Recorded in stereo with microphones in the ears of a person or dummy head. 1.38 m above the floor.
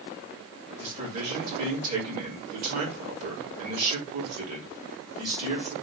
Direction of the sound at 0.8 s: 45° right (ahead or behind).